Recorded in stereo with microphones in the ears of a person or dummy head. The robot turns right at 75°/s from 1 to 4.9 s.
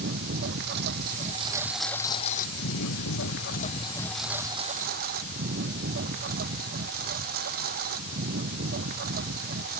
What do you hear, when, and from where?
0.0 s a lawn mower: 60° right; by 9.8 s 125° right